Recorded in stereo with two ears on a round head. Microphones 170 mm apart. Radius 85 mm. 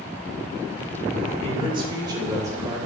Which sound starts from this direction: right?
A man speaking, at 1.4 s.